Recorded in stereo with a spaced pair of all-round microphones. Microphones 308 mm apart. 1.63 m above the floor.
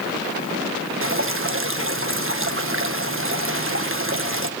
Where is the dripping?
45° right (ahead or behind), 1.5 m.